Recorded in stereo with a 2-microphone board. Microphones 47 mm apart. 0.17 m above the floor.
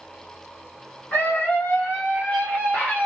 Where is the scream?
35° left (ahead or behind), 2.5 m.